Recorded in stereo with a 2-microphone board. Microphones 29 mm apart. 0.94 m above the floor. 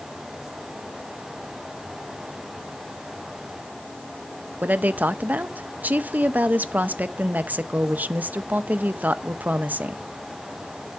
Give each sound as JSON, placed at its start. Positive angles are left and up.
{"t": 4.6, "sound": "a woman speaking", "side_deg": -60, "distance_m": 0.6}